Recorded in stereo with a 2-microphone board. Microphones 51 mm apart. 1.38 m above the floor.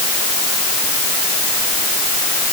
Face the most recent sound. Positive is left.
No sound to turn to.